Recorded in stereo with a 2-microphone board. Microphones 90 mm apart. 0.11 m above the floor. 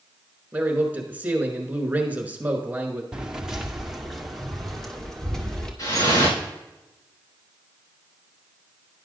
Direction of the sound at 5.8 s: 60° left (ahead or behind).